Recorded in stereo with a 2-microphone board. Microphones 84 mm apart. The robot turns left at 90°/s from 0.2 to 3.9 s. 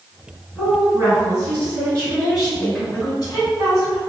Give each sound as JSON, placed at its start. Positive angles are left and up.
{"t": 0.6, "sound": "a woman speaking", "azimuth_deg": 0, "distance_m": 1.8}